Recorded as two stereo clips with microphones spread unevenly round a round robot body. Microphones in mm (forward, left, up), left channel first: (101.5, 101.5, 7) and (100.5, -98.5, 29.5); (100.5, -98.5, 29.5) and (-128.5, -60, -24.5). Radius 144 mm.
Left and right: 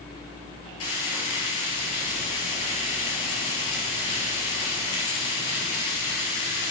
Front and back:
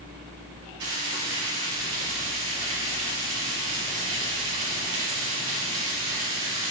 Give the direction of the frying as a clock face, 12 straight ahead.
8 o'clock.